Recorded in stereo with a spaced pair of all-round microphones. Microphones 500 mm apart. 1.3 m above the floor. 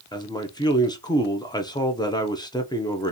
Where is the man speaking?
10° left (ahead or behind), 0.6 m.